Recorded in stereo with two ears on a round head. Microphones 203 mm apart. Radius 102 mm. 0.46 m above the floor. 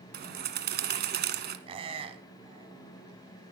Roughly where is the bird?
Right.